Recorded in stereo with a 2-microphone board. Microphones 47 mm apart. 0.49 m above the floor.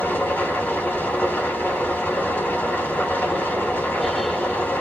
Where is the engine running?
50° left (ahead or behind), 2 m.